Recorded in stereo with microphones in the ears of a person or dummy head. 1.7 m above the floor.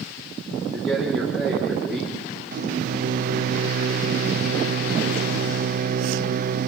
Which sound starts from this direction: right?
A microwave, at 2.5 s.